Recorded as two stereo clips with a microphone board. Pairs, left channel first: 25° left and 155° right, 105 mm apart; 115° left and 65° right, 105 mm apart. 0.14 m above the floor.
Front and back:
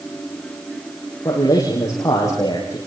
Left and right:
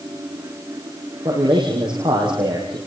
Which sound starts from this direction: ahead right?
A man speaking, at 1.2 s.